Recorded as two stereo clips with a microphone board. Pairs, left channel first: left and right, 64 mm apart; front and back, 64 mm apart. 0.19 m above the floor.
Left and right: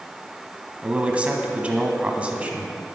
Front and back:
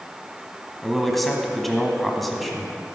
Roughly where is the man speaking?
Right.